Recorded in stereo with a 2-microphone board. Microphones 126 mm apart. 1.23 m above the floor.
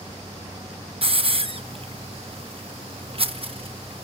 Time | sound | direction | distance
1.0 | a hiss | 50° right (ahead or behind) | 1.0 m